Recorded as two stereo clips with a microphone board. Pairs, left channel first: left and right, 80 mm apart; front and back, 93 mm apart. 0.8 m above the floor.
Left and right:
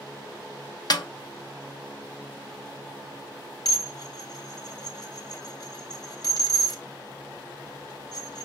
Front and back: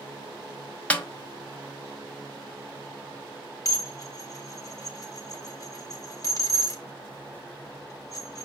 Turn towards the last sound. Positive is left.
turn(degrees=55)